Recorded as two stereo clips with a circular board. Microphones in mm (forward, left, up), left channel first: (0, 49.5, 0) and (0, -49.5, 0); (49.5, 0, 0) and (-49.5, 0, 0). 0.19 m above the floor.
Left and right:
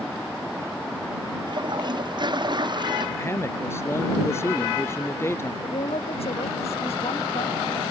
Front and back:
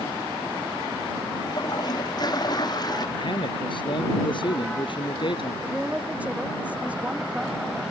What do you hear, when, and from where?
1.5 s a toilet flushing: 45° right
3.2 s a man speaking: 25° left
5.6 s a woman speaking: 105° left